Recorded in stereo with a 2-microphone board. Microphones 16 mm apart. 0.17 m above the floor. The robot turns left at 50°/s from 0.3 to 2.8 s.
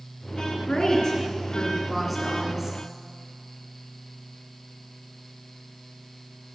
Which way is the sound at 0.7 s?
70° left.